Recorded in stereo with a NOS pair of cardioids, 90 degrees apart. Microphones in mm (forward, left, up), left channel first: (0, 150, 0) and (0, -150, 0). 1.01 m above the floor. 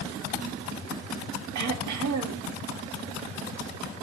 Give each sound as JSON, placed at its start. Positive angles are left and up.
{"t": 1.6, "sound": "throat clearing", "azimuth_deg": -70, "distance_m": 1.5}